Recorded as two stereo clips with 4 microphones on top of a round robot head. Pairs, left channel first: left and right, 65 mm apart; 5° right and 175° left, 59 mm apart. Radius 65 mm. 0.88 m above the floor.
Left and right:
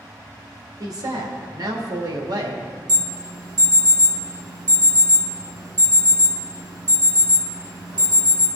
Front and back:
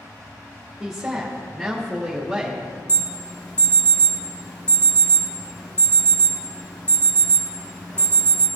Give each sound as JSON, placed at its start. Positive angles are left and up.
{"t": 0.8, "sound": "a woman speaking", "azimuth_deg": -95, "distance_m": 1.9}
{"t": 2.9, "sound": "an alarm", "azimuth_deg": -75, "distance_m": 2.5}